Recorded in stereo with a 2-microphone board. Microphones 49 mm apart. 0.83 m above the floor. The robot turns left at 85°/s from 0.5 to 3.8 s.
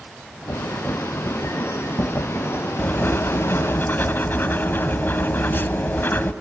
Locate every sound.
2.8 s writing: 140° left, 1.0 m; by 6.3 s 55° left, 1.0 m